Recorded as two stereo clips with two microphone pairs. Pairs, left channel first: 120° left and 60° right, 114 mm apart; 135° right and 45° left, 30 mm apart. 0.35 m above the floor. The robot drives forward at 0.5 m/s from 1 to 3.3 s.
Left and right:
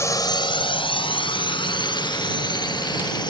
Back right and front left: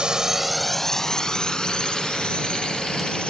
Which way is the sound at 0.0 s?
75° left.